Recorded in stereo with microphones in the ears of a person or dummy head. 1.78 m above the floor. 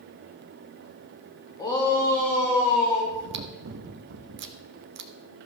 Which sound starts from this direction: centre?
A shout, at 1.6 s.